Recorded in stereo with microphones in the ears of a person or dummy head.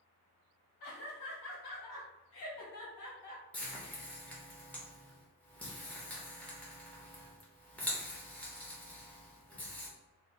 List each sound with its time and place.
0.8 s laughter: 55° left (ahead or behind), 1.7 m; by 3.4 s 35° left (ahead or behind), 1.2 m
3.5 s frying: 10° left (ahead or behind), 0.9 m